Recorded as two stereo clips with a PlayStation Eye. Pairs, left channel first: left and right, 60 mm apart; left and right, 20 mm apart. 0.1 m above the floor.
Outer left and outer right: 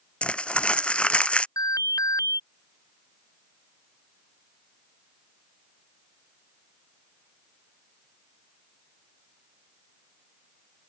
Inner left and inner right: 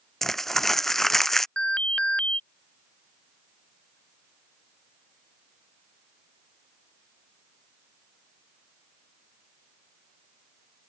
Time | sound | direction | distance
0.2 | crumpling | 20° left (ahead or behind) | ?
1.6 | an alarm | 80° left | ?